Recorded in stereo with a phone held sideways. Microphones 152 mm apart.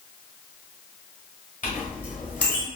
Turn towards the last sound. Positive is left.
turn(degrees=60)  # may be behind; listen again after turning